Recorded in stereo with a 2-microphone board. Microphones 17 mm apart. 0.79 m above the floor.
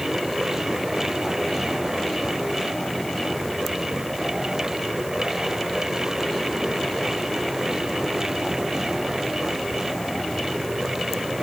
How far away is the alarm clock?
No alarm clock in this recording.